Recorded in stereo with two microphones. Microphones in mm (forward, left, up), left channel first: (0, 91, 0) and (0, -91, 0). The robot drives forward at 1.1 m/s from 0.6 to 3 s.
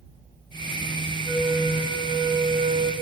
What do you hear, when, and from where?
1.2 s a flute: 25° right (ahead or behind), 2.5 m; by 2.9 s 60° right (ahead or behind), 1.3 m